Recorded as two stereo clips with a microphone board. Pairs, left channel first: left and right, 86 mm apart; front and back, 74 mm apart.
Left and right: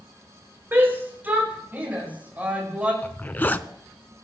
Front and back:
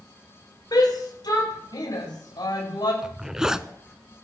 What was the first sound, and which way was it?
A shout, 25° right.